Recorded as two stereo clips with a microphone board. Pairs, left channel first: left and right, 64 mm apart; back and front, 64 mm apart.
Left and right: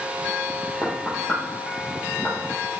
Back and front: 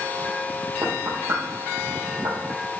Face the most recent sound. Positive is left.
turn(degrees=0)